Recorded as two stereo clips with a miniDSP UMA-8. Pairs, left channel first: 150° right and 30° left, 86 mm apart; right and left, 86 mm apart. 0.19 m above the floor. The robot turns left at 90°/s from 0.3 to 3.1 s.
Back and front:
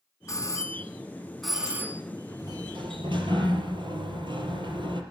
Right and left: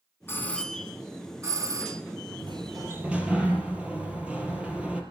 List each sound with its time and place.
0.3 s a doorbell: 135° right, 2 m; by 2.0 s 70° left, 2 m
2.4 s a sliding door: 75° left, 4.5 m; by 5.0 s 15° left, 4.5 m